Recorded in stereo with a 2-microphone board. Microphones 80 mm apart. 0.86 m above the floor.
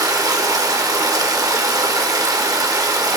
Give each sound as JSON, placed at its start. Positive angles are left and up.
{"t": 0.0, "sound": "running water", "side_deg": -50, "distance_m": 0.8}